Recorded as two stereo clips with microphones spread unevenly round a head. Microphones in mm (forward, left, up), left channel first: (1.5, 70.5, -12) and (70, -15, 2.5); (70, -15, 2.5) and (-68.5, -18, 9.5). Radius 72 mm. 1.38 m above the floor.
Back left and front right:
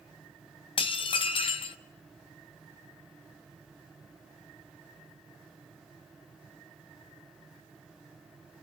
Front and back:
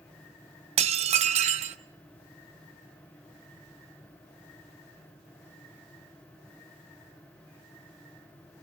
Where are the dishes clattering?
165° left, 0.6 m.